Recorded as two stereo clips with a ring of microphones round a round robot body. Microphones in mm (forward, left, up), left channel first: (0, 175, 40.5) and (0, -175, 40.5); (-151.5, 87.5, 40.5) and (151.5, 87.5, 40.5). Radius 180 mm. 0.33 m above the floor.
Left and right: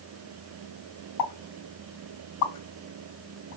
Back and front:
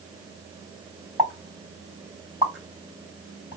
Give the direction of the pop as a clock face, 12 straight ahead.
9 o'clock.